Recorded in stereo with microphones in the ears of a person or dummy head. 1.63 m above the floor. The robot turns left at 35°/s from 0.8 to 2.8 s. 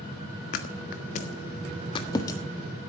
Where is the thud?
50° left (ahead or behind), 1.5 m; by 2.4 s 15° left (ahead or behind), 1.5 m.